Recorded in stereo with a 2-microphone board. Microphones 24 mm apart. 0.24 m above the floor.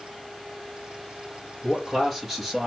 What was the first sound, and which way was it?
A man speaking, 5° left (ahead or behind).